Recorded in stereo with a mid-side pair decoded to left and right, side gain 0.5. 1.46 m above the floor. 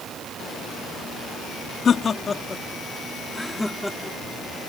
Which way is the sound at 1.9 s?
45° left.